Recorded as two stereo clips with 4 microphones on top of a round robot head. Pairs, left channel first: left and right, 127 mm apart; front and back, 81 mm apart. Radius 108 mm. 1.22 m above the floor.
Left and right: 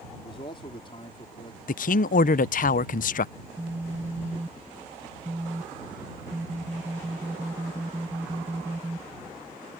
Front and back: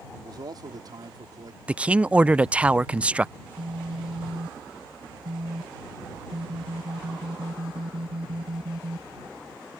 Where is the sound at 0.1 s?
145° left.